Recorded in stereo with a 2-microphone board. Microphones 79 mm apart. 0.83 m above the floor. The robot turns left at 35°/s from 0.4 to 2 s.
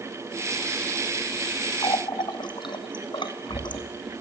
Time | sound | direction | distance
1.8 | a running tap | 75° left (ahead or behind) | 0.8 m